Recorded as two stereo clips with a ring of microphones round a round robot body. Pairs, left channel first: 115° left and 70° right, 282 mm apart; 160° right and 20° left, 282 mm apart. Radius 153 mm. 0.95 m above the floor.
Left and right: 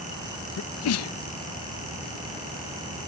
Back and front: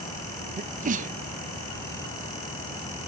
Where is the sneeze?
85° left.